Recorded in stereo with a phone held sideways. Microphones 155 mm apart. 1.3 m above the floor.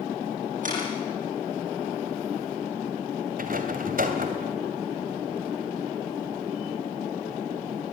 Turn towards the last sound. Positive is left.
turn(degrees=-65)  # may be behind; listen again after turning